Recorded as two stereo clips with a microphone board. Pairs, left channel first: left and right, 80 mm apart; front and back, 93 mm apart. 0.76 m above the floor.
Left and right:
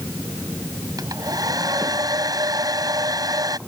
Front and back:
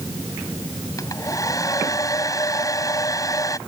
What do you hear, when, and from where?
1.0 s a hair dryer: 50° right